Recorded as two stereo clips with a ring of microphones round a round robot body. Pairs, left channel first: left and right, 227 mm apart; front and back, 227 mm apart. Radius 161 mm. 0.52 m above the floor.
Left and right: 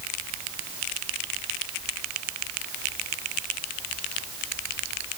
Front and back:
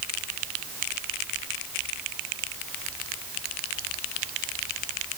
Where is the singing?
I don't hear singing.